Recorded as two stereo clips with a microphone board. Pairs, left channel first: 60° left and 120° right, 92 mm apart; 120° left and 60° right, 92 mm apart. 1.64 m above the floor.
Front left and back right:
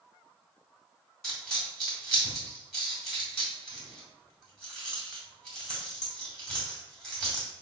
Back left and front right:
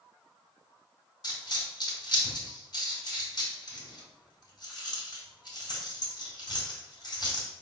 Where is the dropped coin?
145° left, 2 m.